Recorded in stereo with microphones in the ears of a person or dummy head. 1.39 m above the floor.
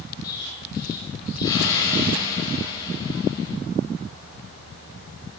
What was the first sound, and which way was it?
An explosion, 20° left (ahead or behind).